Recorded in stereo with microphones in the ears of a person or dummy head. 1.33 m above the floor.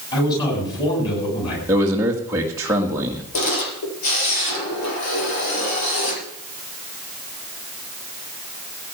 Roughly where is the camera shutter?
Left.